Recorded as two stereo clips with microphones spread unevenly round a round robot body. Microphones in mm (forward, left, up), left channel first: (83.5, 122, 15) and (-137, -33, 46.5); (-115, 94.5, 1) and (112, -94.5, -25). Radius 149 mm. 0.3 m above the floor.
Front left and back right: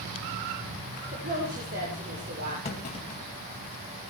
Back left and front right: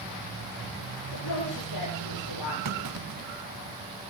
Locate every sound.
1.1 s a woman speaking: 160° left, 9 m
2.6 s a clunk: 25° right, 3 m